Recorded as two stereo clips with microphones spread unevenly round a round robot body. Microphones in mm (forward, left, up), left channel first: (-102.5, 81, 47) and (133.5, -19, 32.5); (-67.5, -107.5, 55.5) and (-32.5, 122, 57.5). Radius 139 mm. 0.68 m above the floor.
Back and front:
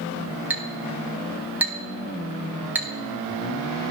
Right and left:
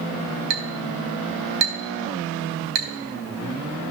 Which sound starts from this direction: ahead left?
A clink, at 0.5 s.